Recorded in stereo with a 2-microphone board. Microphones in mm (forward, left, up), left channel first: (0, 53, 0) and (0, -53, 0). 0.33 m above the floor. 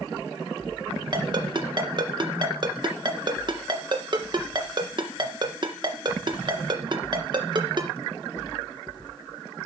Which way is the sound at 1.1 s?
45° right (ahead or behind).